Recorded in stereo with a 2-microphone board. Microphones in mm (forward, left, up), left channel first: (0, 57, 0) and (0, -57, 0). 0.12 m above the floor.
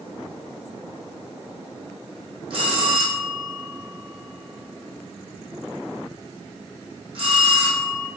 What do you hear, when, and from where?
2.5 s a bell: 55° right (ahead or behind), 1.8 m